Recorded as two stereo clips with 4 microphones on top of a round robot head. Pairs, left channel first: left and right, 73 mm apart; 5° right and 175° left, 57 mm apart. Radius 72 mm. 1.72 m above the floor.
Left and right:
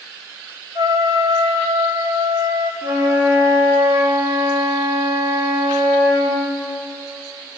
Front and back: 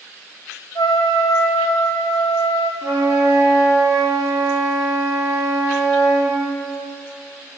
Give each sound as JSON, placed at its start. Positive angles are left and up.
{"t": 0.8, "sound": "a trumpet", "azimuth_deg": -35, "distance_m": 0.9}
{"t": 2.8, "sound": "a flute", "azimuth_deg": -135, "distance_m": 1.5}